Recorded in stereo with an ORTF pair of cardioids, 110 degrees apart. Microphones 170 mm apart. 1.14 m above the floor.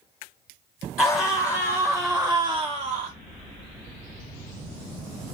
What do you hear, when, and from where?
1.0 s a scream: 25° left, 1.0 m; by 3.1 s 60° right, 0.5 m